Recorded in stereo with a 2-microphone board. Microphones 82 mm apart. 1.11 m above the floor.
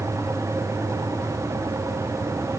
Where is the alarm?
I don't hear an alarm.